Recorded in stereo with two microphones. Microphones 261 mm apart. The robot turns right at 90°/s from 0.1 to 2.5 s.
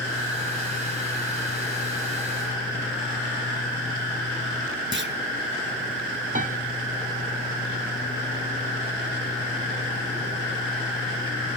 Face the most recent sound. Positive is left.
turn(degrees=-30)  # may be behind; listen again after turning